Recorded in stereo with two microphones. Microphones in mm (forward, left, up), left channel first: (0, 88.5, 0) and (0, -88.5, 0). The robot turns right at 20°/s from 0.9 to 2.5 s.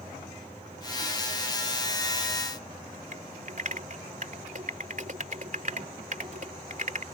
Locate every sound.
3.1 s typing on a keyboard: 50° right (ahead or behind)